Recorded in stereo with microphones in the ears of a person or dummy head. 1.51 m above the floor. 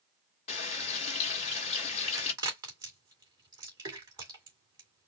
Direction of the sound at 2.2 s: 20° right (ahead or behind).